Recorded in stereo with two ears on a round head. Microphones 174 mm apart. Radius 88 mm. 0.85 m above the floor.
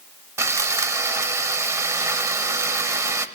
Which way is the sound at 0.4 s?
15° right (ahead or behind).